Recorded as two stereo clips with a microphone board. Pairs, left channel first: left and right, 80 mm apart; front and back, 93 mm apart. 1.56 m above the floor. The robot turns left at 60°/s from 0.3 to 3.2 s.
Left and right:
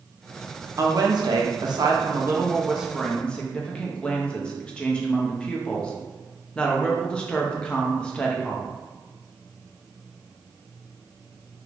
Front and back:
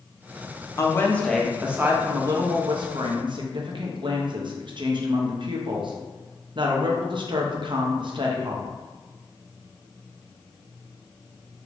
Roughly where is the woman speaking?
Ahead right.